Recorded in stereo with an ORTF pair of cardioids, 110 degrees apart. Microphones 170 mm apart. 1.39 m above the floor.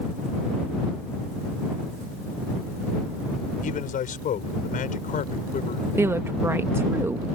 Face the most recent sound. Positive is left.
turn(degrees=-15)